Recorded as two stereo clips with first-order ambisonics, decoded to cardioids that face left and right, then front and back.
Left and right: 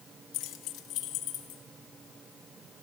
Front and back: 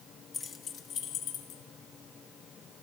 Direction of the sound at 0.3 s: 70° left.